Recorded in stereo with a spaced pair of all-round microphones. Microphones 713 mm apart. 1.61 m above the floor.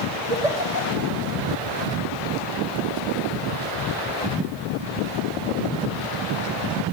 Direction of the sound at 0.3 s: 65° right (ahead or behind).